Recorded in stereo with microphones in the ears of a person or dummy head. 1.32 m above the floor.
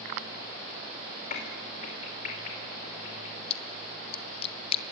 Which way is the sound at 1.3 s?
50° left (ahead or behind).